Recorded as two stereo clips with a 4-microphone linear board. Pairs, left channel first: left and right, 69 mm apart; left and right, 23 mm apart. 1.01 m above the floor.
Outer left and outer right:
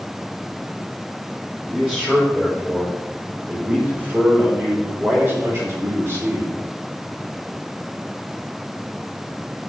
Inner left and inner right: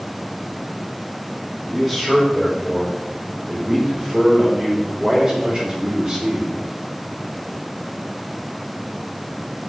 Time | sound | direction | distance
1.7 | a man speaking | 15° right (ahead or behind) | 4.5 m